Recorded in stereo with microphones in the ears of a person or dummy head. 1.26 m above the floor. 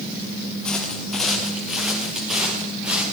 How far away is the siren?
I don't hear a siren.